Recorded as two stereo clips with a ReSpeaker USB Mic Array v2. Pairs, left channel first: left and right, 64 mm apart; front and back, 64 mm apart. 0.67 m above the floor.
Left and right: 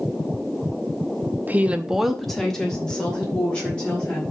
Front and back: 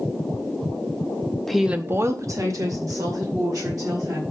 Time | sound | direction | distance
1.5 | a woman speaking | 80° right | 0.8 m